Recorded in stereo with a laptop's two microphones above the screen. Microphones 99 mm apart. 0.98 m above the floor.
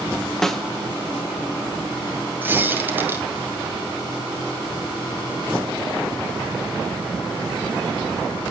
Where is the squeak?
20° right (ahead or behind), 2 m.